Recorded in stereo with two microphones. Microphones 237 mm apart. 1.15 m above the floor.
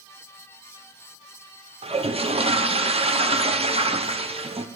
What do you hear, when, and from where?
1.8 s a toilet flushing: 25° right (ahead or behind), 0.5 m